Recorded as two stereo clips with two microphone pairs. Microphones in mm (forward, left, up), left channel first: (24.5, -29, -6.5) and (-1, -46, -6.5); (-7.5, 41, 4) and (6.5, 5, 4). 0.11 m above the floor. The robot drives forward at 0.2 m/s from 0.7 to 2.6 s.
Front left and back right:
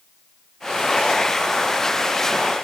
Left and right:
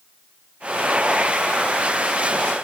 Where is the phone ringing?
No phone ringing in this recording.